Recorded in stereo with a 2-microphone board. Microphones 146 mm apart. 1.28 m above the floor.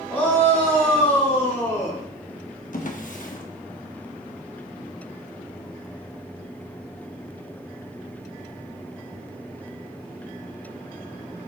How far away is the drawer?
About 1.0 m.